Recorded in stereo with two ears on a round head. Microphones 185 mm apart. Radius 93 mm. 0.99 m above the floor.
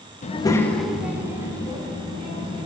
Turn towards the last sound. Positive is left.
turn(degrees=-25)  # may be behind; listen again after turning